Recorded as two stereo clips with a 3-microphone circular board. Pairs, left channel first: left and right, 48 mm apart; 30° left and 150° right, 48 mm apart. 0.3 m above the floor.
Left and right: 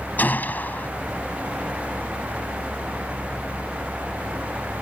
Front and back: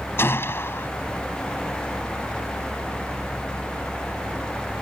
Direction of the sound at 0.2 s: 50° left.